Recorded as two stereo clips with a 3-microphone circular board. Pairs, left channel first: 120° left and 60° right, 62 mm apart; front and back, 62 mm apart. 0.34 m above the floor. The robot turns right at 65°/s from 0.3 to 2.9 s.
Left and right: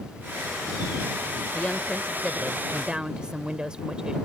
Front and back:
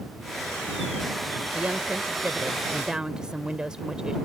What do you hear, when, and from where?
1.5 s a woman speaking: 150° left; by 4.2 s 120° right